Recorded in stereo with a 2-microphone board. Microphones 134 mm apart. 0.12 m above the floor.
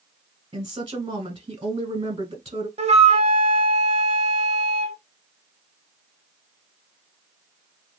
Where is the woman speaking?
35° right (ahead or behind), 1.2 m.